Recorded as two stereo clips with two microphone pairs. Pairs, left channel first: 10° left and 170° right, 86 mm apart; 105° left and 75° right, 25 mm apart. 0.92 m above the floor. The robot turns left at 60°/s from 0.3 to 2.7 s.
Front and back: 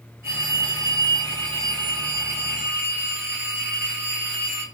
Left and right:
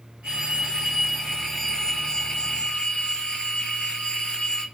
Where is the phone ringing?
110° right, 2 m; by 4.6 s 105° left, 2 m.